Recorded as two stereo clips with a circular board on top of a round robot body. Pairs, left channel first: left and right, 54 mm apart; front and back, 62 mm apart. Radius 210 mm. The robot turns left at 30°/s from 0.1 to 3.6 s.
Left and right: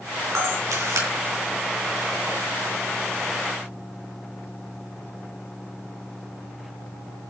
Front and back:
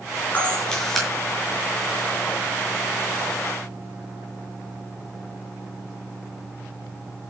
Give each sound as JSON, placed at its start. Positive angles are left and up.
{"t": 0.3, "sound": "a camera shutter", "azimuth_deg": -65, "distance_m": 6.5}